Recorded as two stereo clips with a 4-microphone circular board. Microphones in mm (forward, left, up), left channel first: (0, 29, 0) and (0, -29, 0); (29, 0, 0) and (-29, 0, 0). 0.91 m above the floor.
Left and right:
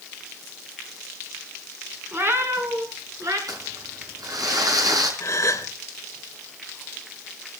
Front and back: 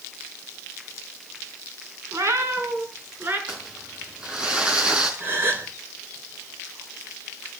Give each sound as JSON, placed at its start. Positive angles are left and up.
{"t": 2.1, "sound": "a cat meowing", "azimuth_deg": -140, "distance_m": 3.0}
{"t": 3.5, "sound": "crumpling", "azimuth_deg": -105, "distance_m": 5.0}
{"t": 5.2, "sound": "a gasp", "azimuth_deg": 130, "distance_m": 3.0}